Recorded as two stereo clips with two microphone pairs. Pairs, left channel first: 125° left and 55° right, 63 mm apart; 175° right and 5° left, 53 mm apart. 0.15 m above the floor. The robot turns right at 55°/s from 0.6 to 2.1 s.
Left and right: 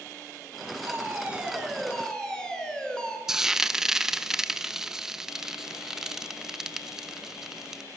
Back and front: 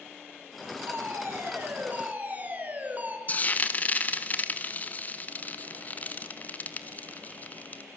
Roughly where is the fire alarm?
Ahead.